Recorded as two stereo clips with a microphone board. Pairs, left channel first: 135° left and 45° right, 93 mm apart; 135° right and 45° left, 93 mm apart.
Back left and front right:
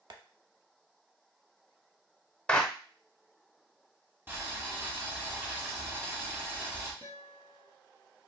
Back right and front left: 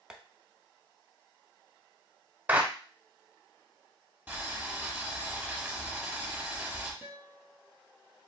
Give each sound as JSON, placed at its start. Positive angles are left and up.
{"t": 0.1, "sound": "tapping", "azimuth_deg": -35, "distance_m": 0.6}
{"t": 2.5, "sound": "a clap", "azimuth_deg": 80, "distance_m": 0.8}
{"t": 4.3, "sound": "boiling", "azimuth_deg": -10, "distance_m": 1.4}
{"t": 7.0, "sound": "a guitar", "azimuth_deg": -25, "distance_m": 1.2}